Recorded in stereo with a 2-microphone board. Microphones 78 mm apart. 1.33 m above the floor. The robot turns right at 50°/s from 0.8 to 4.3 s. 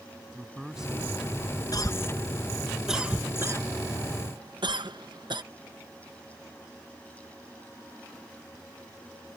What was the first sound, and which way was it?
A man speaking, 175° right.